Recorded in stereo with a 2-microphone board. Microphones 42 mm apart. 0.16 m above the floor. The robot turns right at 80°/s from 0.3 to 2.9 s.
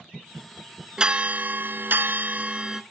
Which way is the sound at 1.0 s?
155° right.